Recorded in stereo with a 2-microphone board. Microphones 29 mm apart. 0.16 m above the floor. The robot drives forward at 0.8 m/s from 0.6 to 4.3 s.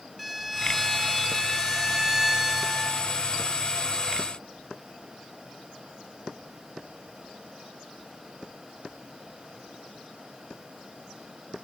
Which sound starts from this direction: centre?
A violin, at 0.2 s.